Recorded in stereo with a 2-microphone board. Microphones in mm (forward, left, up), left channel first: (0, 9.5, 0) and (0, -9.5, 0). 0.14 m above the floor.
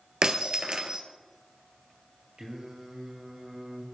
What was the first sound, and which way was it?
Breaking glass, 45° right (ahead or behind).